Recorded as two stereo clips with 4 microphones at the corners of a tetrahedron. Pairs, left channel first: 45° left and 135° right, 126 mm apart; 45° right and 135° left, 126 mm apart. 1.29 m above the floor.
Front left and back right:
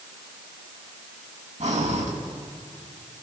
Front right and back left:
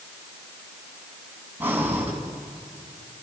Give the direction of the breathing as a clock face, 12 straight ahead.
5 o'clock.